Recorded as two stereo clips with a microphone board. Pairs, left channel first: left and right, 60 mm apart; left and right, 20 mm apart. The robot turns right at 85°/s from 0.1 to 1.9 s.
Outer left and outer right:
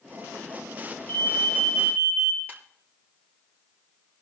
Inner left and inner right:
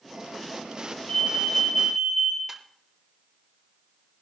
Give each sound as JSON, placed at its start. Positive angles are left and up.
{"t": 1.1, "sound": "an alarm", "azimuth_deg": 140, "distance_m": 3.0}
{"t": 2.5, "sound": "a ringtone", "side_deg": -30, "distance_m": 5.5}